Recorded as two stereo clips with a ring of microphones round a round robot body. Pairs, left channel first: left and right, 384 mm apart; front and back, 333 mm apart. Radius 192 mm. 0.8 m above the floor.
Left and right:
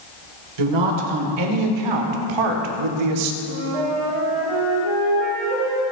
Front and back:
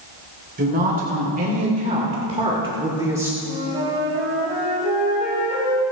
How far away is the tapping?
No tapping in this recording.